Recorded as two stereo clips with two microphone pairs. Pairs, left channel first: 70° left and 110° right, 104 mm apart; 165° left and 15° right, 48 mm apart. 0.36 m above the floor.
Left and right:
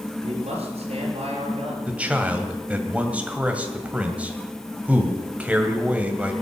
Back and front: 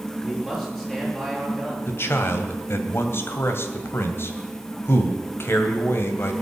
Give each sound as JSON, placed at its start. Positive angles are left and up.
{"t": 0.2, "sound": "a man speaking", "azimuth_deg": -115, "distance_m": 5.5}
{"t": 1.9, "sound": "a man speaking", "azimuth_deg": 175, "distance_m": 2.0}